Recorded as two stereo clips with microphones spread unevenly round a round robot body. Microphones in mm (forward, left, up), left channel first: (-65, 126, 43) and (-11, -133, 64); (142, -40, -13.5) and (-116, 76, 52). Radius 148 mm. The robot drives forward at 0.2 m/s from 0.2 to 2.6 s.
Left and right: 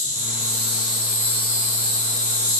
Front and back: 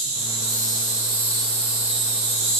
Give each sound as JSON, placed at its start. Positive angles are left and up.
{"t": 0.0, "sound": "an insect", "azimuth_deg": -140, "distance_m": 1.0}